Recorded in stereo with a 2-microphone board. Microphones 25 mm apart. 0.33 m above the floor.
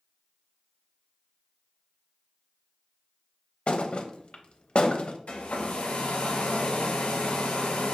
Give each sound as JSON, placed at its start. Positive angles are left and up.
{"t": 3.7, "sound": "a thud", "side_deg": 40, "distance_m": 0.5}
{"t": 5.3, "sound": "a hair dryer", "side_deg": 70, "distance_m": 1.1}